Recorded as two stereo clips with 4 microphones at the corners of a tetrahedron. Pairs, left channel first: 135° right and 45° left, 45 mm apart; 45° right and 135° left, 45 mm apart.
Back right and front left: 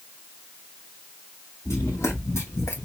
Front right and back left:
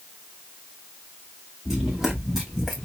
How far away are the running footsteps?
About 2 m.